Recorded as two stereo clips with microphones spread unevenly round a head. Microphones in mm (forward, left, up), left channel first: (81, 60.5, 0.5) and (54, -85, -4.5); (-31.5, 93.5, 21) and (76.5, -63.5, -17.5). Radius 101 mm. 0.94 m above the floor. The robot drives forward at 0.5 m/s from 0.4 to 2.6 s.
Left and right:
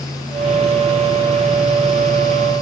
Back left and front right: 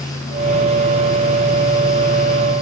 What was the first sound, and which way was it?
Only background noise.